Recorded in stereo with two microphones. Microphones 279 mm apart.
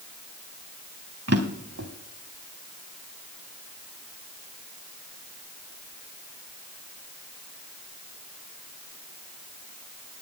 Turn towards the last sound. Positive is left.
turn(degrees=-55)  # may be behind; listen again after turning